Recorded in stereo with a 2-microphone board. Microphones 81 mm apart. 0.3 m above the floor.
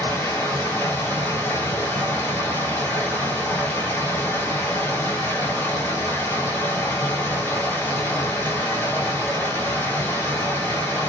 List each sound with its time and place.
0.0 s running water: 25° left (ahead or behind), 1.3 m